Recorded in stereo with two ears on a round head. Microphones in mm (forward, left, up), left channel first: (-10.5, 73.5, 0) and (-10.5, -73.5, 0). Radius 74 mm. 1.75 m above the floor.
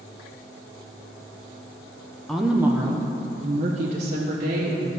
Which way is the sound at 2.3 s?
5° left (ahead or behind).